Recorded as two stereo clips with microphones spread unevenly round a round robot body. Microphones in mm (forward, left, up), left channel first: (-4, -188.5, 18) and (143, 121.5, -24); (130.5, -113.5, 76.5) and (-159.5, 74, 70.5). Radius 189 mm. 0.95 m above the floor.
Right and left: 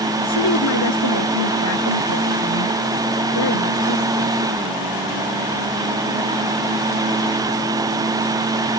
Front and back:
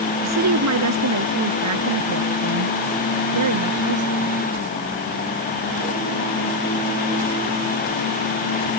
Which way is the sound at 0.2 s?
165° right.